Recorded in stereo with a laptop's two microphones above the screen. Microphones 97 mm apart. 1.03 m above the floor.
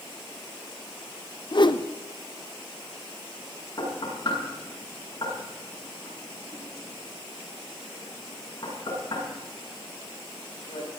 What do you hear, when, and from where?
1.5 s a whoosh: 55° left (ahead or behind), 0.9 m
3.8 s knocking: 40° left (ahead or behind), 7.5 m